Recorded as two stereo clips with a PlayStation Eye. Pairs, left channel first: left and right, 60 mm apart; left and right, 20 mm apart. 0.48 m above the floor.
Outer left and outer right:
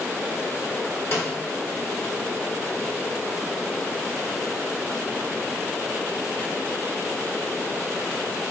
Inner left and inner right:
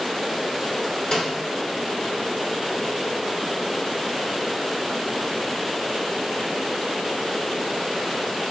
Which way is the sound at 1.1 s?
45° left (ahead or behind).